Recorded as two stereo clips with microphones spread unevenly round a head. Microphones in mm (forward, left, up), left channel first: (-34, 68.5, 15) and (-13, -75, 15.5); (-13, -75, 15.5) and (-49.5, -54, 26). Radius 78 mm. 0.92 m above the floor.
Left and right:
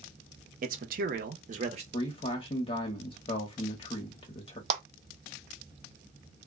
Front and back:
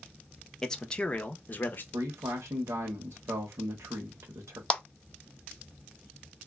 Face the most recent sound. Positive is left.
turn(degrees=-70)